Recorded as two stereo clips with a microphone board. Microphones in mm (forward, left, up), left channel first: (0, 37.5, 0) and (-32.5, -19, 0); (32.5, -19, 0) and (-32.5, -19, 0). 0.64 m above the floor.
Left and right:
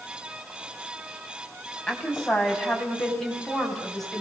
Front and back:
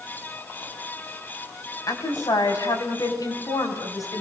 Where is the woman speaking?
20° right, 5 m; by 4.2 s 25° right, 6.5 m.